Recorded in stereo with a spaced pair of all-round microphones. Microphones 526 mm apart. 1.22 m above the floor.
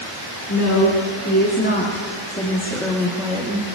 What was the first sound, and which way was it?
A woman speaking, 35° left (ahead or behind).